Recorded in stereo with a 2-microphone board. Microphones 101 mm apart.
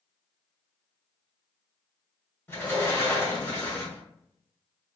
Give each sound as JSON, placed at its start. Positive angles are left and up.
{"t": 2.5, "sound": "a sliding door", "side_deg": 25, "distance_m": 1.3}